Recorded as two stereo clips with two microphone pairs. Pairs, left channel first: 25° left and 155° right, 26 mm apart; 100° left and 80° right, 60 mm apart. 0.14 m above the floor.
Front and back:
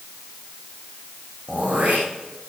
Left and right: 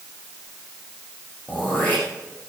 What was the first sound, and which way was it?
Throat clearing, 170° left.